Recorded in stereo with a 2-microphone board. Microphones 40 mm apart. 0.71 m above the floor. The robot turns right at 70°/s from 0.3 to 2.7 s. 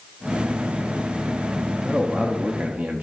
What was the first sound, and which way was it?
A man speaking, 5° right (ahead or behind).